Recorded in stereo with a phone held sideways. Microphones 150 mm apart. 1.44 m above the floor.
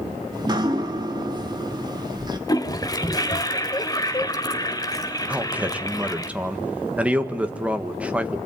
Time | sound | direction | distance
0.3 | dripping | 30° right (ahead or behind) | 2.0 m
2.5 | a toilet flushing | 25° left (ahead or behind) | 1.4 m
5.3 | a man speaking | 10° right (ahead or behind) | 1.6 m